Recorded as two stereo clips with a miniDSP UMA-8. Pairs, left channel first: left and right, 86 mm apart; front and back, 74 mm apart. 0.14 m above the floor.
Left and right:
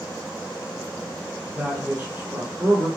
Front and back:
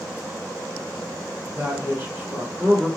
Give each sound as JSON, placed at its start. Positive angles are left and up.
{"t": 1.6, "sound": "a man speaking", "azimuth_deg": -145, "distance_m": 2.0}